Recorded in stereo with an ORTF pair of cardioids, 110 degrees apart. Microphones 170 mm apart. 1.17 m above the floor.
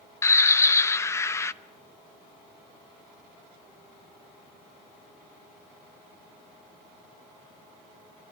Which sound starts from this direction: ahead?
A bird, at 0.2 s.